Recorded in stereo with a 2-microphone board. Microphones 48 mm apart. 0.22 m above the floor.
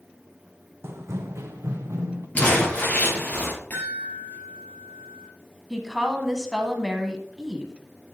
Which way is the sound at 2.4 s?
25° left (ahead or behind).